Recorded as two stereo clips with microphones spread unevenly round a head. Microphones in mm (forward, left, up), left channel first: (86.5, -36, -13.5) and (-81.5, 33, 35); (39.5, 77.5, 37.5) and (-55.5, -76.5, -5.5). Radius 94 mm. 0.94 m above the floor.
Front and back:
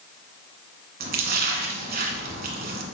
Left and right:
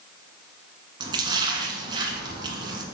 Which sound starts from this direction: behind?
A splash, at 1.0 s.